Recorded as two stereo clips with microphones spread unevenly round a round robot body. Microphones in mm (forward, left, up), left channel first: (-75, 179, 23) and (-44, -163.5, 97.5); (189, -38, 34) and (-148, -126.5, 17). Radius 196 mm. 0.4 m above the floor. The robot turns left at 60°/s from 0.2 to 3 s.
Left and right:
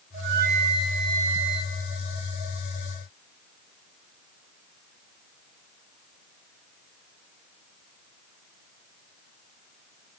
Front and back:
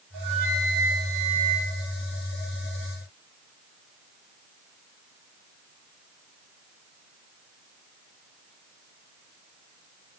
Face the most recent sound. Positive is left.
turn(degrees=50)